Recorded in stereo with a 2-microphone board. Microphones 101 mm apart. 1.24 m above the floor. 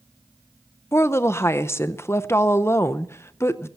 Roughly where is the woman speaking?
Left.